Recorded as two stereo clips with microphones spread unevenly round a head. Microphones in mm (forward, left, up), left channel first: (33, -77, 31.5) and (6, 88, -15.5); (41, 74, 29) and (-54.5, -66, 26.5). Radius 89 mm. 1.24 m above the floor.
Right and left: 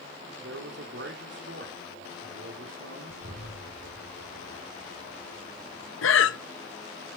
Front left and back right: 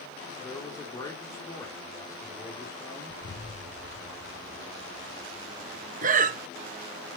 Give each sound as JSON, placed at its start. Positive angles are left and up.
{"t": 0.4, "sound": "a man speaking", "azimuth_deg": 125, "distance_m": 4.0}
{"t": 3.1, "sound": "an explosion", "azimuth_deg": 70, "distance_m": 3.0}
{"t": 6.0, "sound": "breathing", "azimuth_deg": -80, "distance_m": 1.1}